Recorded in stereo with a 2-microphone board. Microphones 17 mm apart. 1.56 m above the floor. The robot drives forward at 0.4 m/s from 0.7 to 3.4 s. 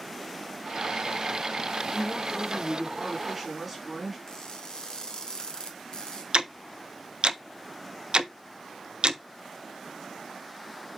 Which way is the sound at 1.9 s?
5° right (ahead or behind).